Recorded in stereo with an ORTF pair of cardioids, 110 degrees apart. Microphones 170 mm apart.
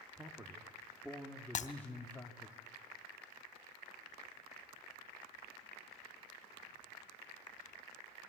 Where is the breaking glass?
50° left, 3 m.